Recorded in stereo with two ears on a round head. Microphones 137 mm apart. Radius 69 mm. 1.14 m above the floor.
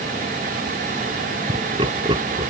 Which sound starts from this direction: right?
Laughter, at 1.5 s.